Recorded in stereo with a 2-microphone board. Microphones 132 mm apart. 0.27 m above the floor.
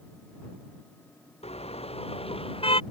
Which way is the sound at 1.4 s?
50° left (ahead or behind).